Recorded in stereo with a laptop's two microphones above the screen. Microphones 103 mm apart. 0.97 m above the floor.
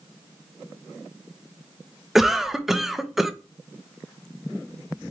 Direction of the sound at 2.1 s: 5° right (ahead or behind).